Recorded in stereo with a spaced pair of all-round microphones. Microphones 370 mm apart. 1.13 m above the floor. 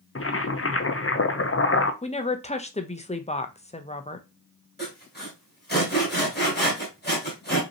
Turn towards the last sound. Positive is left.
turn(degrees=25)  # may be behind; listen again after turning